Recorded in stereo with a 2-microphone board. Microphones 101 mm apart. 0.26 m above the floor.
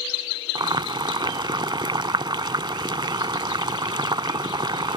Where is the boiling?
50° right (ahead or behind).